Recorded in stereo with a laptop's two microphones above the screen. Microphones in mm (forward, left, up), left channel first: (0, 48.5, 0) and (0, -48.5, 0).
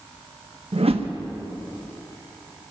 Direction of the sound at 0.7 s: 85° right.